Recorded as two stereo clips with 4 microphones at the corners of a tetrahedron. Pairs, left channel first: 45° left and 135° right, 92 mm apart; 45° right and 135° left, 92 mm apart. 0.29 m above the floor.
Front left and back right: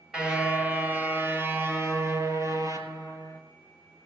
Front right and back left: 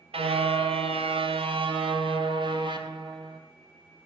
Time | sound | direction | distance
0.1 | a car horn | 145° left | 2.5 m